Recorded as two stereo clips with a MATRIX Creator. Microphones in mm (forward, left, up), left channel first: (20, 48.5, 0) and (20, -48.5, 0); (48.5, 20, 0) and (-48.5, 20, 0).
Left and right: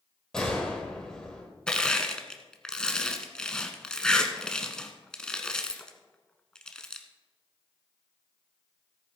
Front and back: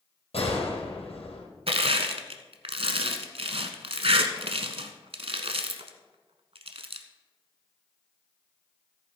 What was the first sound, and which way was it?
A gunshot, 5° left.